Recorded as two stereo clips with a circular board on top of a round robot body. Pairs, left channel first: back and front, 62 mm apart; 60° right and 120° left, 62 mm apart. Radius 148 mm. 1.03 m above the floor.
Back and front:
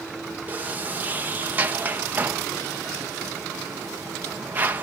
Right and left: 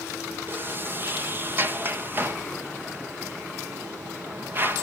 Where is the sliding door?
65° left, 1.3 m.